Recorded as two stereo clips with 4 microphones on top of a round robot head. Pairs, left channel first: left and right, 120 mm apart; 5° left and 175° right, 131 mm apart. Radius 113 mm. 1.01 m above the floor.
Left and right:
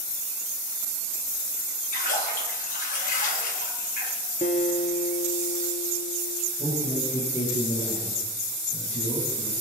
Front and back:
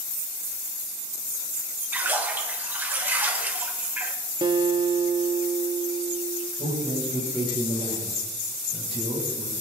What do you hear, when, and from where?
1.9 s a splash: 105° left, 2 m
4.4 s a guitar: 130° left, 0.8 m
6.6 s a man speaking: 140° left, 7.5 m